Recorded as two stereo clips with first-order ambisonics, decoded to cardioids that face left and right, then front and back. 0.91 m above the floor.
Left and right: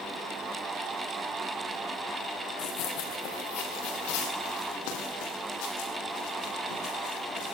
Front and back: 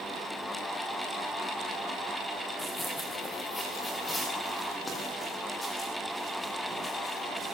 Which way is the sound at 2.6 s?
85° left.